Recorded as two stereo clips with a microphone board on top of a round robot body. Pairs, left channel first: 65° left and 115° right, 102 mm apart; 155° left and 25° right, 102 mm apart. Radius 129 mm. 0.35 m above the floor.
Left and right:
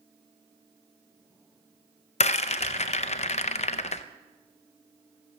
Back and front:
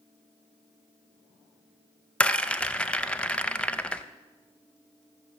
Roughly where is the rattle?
Left.